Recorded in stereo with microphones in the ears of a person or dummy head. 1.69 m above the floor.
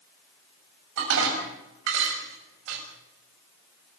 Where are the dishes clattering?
70° right (ahead or behind), 6.5 m.